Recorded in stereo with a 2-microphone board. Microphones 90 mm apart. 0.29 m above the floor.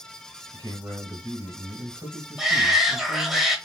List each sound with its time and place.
0.5 s a man speaking: 35° right (ahead or behind), 1.6 m
2.4 s a shout: 5° right (ahead or behind), 0.9 m